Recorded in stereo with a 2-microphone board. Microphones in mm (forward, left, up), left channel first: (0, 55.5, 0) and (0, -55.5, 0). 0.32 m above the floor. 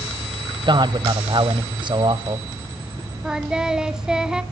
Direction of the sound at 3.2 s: 5° right (ahead or behind).